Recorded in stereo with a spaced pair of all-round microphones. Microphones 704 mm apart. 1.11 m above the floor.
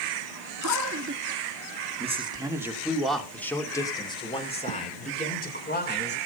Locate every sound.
0.6 s a man speaking: 25° right (ahead or behind), 2 m; by 6.2 s 15° left (ahead or behind), 4 m